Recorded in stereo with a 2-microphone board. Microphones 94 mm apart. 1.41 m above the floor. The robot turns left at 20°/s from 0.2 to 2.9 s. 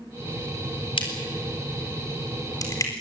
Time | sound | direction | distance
1.0 | a crack | 75° left (ahead or behind) | 4 m